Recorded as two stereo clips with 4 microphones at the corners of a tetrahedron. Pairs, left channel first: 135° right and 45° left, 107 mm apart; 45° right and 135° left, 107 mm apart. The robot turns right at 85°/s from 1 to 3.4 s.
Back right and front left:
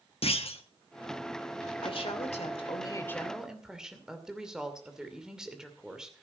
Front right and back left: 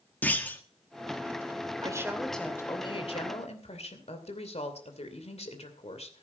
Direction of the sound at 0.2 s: 120° right.